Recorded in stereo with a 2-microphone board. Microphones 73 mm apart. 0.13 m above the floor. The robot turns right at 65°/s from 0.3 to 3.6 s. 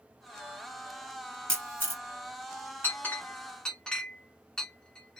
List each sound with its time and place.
1.5 s a camera shutter: 15° left (ahead or behind), 1.3 m; by 2.0 s 30° left (ahead or behind), 1.3 m
2.8 s a clink: 25° left (ahead or behind), 0.9 m; by 5.2 s 10° left (ahead or behind), 0.9 m